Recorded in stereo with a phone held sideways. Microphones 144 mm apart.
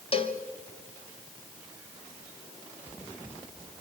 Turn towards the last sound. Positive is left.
turn(degrees=40)  # may be behind; listen again after turning